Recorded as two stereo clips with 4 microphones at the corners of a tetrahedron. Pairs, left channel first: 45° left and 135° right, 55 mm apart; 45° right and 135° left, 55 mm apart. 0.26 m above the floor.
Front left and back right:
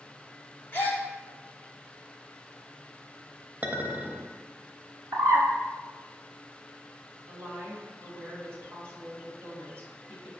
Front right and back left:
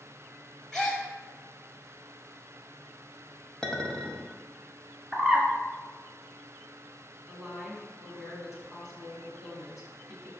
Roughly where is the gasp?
Ahead left.